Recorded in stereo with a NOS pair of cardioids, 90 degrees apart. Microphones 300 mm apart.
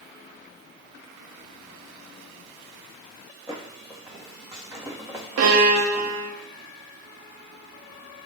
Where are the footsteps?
10° right, 4.5 m.